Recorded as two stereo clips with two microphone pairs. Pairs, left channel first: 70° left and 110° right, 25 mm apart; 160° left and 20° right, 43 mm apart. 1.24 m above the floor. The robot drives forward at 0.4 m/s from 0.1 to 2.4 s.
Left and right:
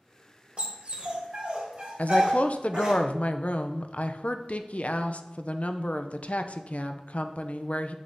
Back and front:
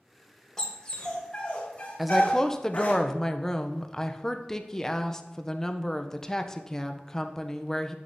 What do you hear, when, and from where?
0.6 s a dog barking: 125° right, 1.2 m; by 3.0 s 150° right, 1.7 m
2.0 s a woman speaking: 70° left, 0.5 m; by 8.0 s 90° left, 0.5 m